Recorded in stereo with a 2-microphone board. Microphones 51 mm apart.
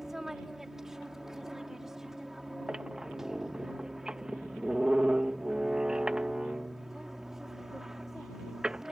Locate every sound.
0.0 s an aircraft: 5° right (ahead or behind)
2.7 s a squeak: 20° right (ahead or behind)